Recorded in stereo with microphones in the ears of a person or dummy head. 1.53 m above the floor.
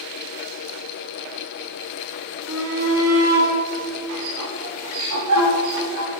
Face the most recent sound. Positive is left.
turn(degrees=-80)